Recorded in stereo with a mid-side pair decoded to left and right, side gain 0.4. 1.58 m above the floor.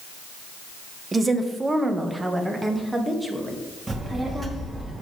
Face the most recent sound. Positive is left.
turn(degrees=-25)